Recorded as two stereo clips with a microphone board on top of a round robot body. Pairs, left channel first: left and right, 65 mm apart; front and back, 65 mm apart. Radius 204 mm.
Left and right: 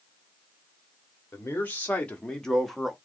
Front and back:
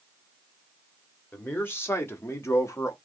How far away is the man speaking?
About 1.5 m.